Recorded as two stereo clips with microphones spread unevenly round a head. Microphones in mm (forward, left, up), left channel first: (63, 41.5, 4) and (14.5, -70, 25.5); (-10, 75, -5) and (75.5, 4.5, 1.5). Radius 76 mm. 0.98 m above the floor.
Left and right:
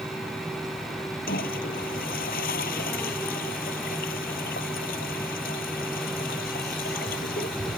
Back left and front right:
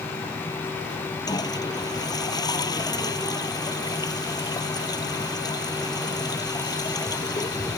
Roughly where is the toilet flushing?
Left.